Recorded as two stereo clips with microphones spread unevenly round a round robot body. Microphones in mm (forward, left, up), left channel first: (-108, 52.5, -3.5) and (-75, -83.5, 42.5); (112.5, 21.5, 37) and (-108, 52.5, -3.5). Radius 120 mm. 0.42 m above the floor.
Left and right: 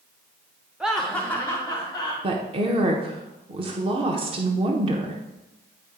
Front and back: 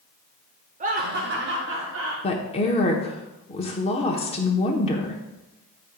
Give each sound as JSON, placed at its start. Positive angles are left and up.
{"t": 0.8, "sound": "laughter", "azimuth_deg": 180, "distance_m": 0.9}
{"t": 2.2, "sound": "a woman speaking", "azimuth_deg": -50, "distance_m": 1.0}